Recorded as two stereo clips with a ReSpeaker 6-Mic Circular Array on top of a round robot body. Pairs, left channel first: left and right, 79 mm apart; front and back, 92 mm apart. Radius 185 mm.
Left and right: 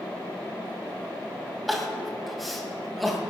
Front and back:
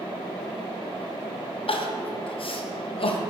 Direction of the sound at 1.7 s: Straight ahead.